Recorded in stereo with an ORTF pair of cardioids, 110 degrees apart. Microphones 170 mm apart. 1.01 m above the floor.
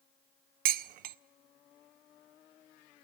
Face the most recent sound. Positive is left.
turn(degrees=-60)